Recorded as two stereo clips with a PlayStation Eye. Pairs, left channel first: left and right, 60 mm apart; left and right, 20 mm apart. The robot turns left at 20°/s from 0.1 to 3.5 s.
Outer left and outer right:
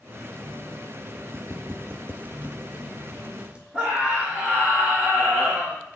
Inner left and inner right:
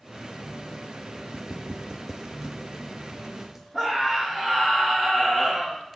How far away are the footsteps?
About 0.6 m.